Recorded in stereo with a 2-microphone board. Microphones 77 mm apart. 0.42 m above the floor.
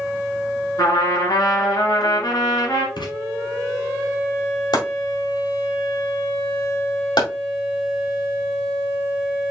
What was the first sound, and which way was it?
A trumpet, 55° left (ahead or behind).